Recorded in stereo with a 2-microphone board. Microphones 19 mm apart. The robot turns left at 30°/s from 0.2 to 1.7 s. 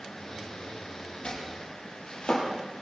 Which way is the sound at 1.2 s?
65° left (ahead or behind).